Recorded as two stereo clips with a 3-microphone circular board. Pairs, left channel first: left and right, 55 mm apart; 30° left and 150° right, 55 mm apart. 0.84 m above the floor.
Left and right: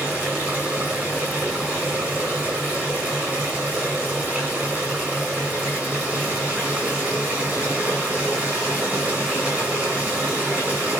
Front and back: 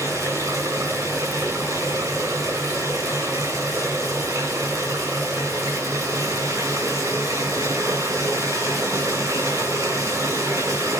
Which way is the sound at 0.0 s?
145° right.